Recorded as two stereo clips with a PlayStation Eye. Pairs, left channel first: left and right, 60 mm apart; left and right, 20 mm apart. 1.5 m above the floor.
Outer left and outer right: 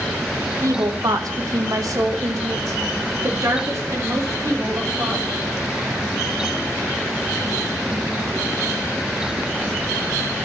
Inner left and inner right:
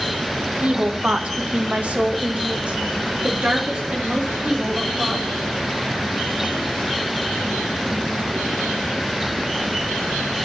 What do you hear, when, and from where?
0.6 s a woman speaking: 60° right (ahead or behind), 1.3 m; by 5.2 s 50° right (ahead or behind), 4 m